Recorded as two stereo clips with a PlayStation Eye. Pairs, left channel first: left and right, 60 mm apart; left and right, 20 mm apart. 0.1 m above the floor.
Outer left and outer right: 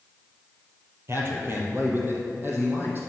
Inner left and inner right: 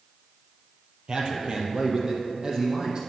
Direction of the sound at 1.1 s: 45° right (ahead or behind).